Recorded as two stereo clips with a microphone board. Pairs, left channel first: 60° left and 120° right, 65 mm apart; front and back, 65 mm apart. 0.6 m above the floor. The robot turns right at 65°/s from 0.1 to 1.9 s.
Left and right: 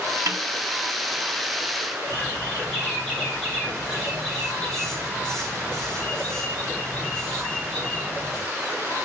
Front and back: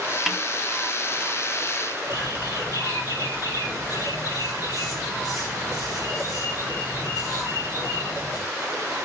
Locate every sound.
0.3 s a snare drum: 95° right, 1.2 m; by 0.4 s 85° right, 1.2 m
2.1 s a bird: 20° right, 5.5 m